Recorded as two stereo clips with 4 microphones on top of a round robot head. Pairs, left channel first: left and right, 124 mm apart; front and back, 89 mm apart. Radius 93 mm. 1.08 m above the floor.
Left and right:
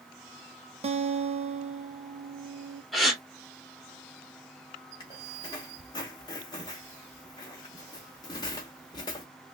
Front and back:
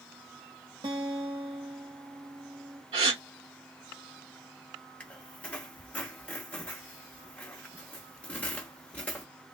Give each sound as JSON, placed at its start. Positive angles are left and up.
{"t": 0.8, "sound": "a guitar", "azimuth_deg": -125, "distance_m": 0.9}
{"t": 2.9, "sound": "a gasp", "azimuth_deg": 180, "distance_m": 1.7}
{"t": 5.0, "sound": "a squeak", "azimuth_deg": 60, "distance_m": 0.7}